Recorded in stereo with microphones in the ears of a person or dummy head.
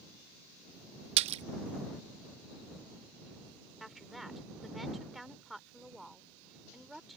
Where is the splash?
45° right (ahead or behind).